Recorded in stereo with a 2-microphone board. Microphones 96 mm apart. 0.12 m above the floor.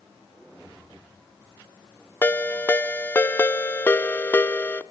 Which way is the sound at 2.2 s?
20° left (ahead or behind).